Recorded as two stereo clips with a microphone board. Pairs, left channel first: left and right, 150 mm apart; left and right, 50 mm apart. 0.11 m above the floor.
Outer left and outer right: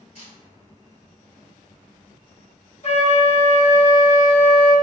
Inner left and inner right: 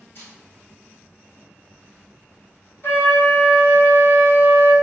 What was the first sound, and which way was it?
A camera shutter, 55° left (ahead or behind).